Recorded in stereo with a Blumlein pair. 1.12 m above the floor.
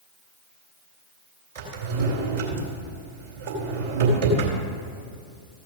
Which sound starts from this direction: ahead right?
A drawer, at 1.6 s.